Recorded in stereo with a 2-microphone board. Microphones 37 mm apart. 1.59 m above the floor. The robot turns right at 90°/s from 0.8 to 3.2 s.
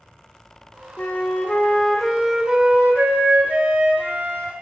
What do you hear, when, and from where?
1.0 s a flute: 75° left, 0.6 m; by 4.5 s 85° right, 0.6 m